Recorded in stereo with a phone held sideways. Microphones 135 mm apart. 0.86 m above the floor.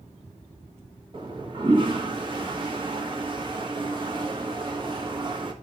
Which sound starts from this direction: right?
A toilet flushing, at 1.1 s.